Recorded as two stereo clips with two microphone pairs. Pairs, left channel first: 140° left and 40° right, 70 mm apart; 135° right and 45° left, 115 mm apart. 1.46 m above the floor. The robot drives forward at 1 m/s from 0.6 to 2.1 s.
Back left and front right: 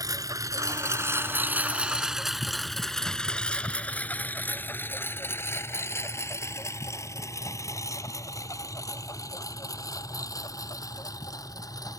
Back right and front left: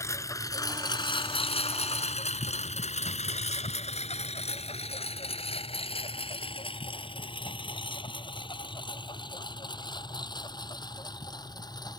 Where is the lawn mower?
70° right; by 12.0 s 170° left.